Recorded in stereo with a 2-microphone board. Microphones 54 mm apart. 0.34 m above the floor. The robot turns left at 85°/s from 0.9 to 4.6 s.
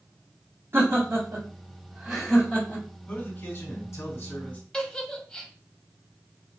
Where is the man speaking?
145° left, 3 m; by 4.6 s 15° left, 3 m.